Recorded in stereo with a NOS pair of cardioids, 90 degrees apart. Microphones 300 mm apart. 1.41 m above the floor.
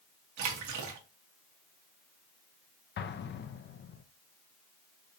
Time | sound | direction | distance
0.4 | a splash | 70° right | 1.2 m
3.0 | an explosion | 40° left | 0.6 m